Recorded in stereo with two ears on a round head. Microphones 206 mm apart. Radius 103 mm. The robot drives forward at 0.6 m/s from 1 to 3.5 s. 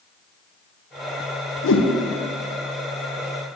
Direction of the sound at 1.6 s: 55° left (ahead or behind).